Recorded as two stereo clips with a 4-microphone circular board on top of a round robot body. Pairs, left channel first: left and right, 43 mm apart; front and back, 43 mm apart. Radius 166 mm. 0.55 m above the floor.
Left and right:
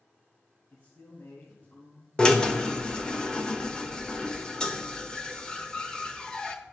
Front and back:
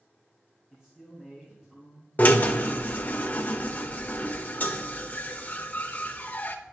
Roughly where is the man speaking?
Left.